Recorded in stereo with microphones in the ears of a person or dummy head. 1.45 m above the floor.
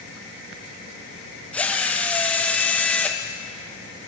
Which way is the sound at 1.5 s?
10° left (ahead or behind).